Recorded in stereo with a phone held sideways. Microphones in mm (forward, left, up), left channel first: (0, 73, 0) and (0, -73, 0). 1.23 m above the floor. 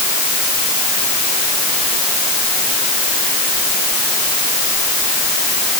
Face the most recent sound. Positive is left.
No sound to turn to.